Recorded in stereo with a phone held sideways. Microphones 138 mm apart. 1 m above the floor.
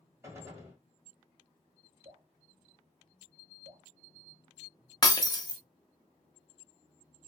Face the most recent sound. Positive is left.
turn(degrees=30)  # may be behind; listen again after turning